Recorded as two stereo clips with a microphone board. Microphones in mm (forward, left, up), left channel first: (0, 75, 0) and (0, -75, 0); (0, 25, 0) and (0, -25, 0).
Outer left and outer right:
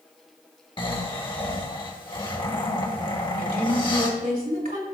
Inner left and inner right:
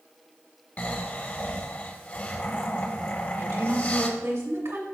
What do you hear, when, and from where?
0.8 s snoring: 35° left (ahead or behind), 1.1 m
3.4 s a woman speaking: 70° right (ahead or behind), 2 m